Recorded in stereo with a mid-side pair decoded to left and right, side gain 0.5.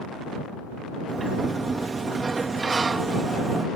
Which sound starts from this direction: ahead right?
A sliding door, at 1.1 s.